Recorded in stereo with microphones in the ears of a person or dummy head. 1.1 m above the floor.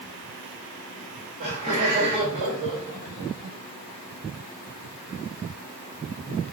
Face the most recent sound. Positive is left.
turn(degrees=-30)  # may be behind; listen again after turning